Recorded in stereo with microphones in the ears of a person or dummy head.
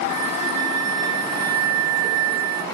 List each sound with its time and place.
0.1 s a flute: 55° right (ahead or behind), 0.8 m